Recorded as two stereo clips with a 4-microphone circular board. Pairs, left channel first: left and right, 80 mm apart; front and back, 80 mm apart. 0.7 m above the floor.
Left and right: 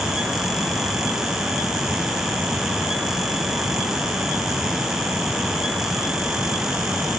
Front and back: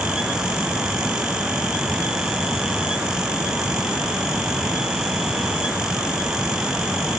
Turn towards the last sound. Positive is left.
No sound to turn to.